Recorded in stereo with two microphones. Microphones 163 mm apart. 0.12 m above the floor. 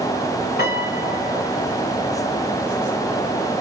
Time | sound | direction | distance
0.6 | a piano | 85° left | 2.5 m